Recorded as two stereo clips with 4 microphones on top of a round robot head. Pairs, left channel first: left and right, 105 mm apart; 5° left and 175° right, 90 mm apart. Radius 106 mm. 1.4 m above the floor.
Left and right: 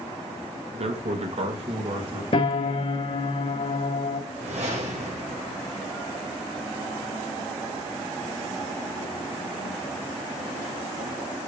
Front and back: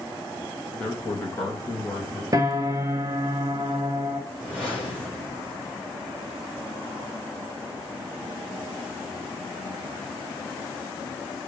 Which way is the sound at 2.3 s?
135° left.